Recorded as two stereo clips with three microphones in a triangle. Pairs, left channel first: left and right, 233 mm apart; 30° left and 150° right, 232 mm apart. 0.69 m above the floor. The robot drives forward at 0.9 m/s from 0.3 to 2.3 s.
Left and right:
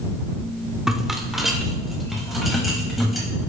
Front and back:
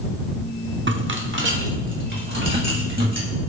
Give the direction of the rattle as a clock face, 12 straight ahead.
6 o'clock.